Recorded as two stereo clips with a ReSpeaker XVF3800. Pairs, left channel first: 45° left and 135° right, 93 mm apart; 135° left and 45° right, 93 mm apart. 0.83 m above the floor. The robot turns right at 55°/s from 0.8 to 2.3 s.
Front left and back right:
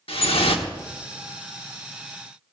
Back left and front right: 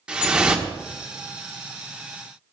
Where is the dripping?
35° left, 1.3 m.